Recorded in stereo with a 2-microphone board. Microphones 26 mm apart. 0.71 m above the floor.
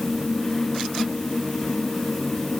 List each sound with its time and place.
Only background noise.